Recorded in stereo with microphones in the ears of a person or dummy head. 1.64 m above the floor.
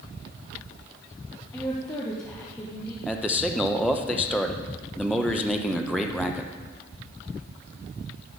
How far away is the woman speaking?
About 1.2 m.